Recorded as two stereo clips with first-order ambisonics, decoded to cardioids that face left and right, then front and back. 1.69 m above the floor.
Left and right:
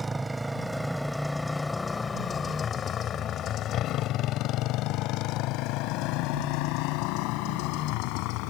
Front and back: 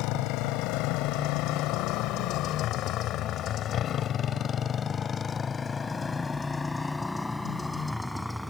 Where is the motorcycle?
15° right; by 8.5 s 90° left.